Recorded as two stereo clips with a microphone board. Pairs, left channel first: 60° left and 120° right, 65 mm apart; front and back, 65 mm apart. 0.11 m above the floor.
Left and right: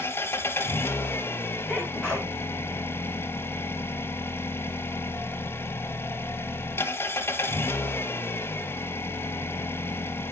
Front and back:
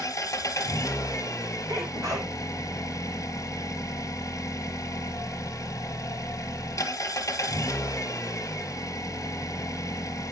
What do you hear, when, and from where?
0.0 s an engine running: 15° left, 0.8 m
1.7 s a sneeze: 175° left, 3.5 m